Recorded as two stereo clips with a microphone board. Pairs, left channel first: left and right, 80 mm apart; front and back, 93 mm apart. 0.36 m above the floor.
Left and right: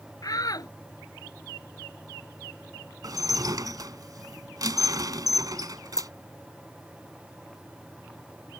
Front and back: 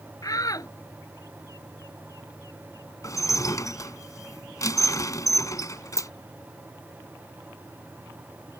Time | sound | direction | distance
0.2 | a shout | 50° left | ?
3.0 | dishes clattering | 50° right | ?
6.0 | a dropped coin | 130° left | ?